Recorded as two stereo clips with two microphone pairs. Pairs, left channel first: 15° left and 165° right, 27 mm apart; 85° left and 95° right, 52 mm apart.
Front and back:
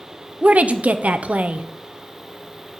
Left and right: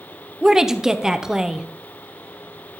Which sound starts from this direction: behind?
A woman speaking, at 0.4 s.